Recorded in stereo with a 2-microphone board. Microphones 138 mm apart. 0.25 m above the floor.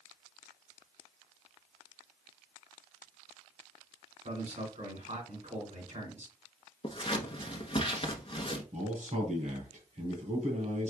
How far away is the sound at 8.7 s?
About 2.5 m.